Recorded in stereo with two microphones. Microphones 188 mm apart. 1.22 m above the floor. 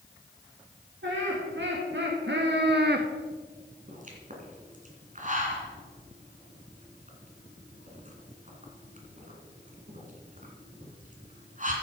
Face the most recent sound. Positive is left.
turn(degrees=-45)  # may be behind; listen again after turning